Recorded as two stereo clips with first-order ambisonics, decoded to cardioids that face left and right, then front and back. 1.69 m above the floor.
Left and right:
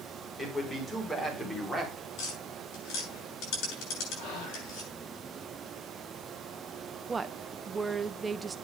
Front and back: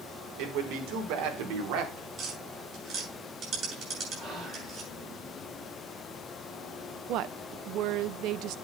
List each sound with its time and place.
0.4 s a man speaking: 170° left, 5 m; by 2.1 s straight behind, 3.5 m
2.2 s tapping: 125° left, 8 m
4.2 s whispering: 110° left, 4.5 m
7.1 s a woman speaking: 165° right, 0.7 m